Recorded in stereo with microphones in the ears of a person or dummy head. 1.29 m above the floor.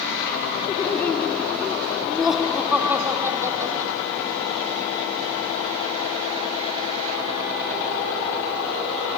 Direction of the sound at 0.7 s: 15° left (ahead or behind).